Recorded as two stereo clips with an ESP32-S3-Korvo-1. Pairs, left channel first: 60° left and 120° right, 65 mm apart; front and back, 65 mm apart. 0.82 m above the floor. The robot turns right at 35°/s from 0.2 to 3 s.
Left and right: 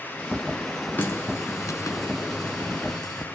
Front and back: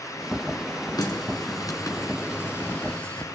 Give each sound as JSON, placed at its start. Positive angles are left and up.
{"t": 1.0, "sound": "a running tap", "azimuth_deg": 0, "distance_m": 7.0}